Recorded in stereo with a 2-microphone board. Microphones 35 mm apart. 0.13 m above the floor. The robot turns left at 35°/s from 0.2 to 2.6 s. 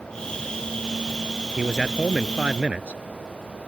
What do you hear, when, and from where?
1.6 s a man speaking: 10° right; by 3.0 s 50° right